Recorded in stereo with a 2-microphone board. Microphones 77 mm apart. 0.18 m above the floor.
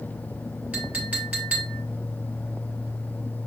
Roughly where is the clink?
Centre.